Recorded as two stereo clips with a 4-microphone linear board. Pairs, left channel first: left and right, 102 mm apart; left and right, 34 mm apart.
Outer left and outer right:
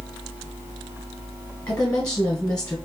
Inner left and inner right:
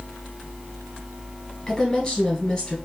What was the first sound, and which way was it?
A woman speaking, 10° left (ahead or behind).